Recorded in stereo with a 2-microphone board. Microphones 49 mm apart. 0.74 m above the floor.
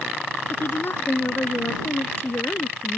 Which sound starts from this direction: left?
A woman speaking, at 0.5 s.